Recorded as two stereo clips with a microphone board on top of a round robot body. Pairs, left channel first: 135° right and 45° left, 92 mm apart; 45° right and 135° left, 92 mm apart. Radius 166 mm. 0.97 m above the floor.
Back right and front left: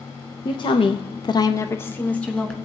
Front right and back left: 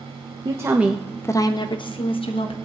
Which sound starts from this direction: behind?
A woman speaking, at 0.5 s.